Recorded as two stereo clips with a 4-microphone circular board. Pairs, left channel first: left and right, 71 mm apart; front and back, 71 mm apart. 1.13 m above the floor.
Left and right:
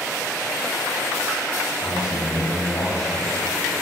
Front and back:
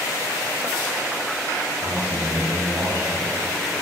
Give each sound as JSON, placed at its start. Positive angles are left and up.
{"t": 1.8, "sound": "a man speaking", "azimuth_deg": 130, "distance_m": 7.0}